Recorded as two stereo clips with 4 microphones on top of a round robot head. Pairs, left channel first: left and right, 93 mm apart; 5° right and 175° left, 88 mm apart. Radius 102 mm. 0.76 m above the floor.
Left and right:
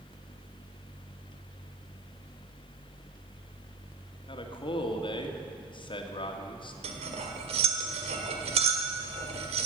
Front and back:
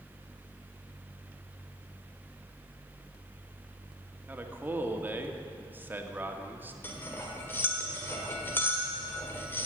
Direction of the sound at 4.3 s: 110° left.